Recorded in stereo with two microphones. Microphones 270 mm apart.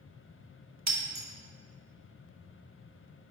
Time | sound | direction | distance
0.9 | breaking glass | 80° right | 0.9 m